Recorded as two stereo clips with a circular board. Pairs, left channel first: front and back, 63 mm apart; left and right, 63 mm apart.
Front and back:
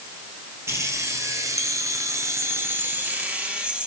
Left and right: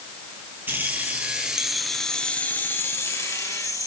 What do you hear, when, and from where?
0.7 s keys jangling: 140° right, 2 m; by 3.9 s 105° left, 2.5 m